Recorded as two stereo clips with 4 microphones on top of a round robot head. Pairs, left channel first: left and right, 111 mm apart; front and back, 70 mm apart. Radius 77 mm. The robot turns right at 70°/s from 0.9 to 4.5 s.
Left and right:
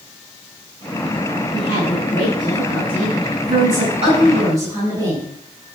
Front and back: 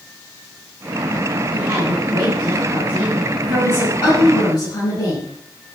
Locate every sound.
1.5 s a woman speaking: 120° left, 8.5 m; by 5.3 s 30° right, 8.5 m